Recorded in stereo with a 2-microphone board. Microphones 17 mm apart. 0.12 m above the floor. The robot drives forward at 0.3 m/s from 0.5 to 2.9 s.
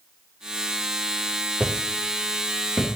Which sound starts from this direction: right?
Footsteps, at 1.6 s.